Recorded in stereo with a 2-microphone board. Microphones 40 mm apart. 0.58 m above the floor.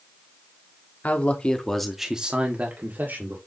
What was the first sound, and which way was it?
A man speaking, 35° left (ahead or behind).